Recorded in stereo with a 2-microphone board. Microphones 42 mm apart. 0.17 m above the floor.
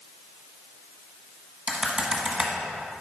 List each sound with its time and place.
1.7 s typing on a keyboard: 25° right (ahead or behind), 1.5 m